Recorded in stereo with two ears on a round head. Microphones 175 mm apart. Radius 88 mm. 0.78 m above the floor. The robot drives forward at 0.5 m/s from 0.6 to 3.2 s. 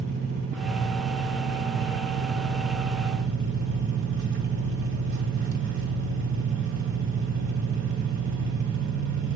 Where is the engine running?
60° right (ahead or behind), 1.8 m; by 9.4 s 75° right (ahead or behind), 1.7 m.